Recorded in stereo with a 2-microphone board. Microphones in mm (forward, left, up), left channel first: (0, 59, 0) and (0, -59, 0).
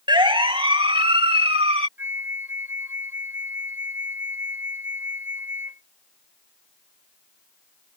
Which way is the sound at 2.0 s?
20° right (ahead or behind).